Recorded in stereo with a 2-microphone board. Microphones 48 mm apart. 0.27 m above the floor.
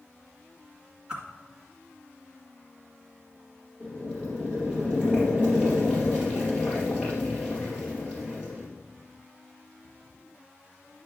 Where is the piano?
No piano in this recording.